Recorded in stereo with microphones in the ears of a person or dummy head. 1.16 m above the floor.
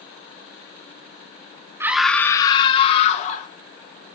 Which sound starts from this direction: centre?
A scream, at 1.8 s.